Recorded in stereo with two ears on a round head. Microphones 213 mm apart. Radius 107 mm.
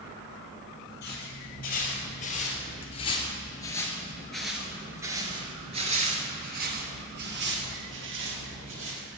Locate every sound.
1.0 s footsteps: 45° left (ahead or behind), 2.5 m; by 9.1 s 60° right (ahead or behind), 2.5 m